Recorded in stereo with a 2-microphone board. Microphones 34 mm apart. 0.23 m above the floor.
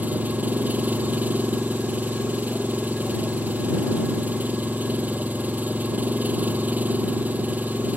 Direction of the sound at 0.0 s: 60° right (ahead or behind).